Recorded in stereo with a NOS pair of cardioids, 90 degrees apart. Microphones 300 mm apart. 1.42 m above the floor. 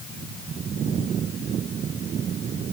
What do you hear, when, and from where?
Only background noise.